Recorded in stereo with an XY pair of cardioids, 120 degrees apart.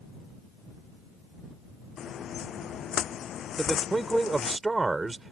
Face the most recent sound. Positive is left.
turn(degrees=-20)